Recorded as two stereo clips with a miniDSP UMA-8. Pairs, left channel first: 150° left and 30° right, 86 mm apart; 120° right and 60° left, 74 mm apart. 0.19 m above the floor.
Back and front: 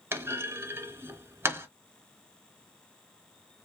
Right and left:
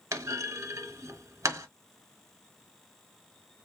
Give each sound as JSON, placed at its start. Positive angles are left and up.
{"t": 0.1, "sound": "a clunk", "azimuth_deg": 25, "distance_m": 0.6}